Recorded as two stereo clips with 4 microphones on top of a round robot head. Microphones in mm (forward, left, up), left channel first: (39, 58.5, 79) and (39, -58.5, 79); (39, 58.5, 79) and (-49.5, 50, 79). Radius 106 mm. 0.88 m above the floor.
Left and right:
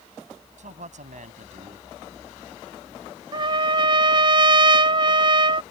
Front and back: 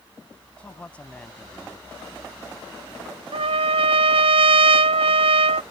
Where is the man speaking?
75° right.